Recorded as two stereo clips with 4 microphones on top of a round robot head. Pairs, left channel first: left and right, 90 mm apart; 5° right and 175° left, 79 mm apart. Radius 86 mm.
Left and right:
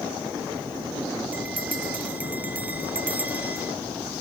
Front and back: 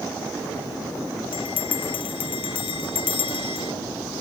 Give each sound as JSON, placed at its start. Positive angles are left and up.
{"t": 1.3, "sound": "a bell", "azimuth_deg": -15}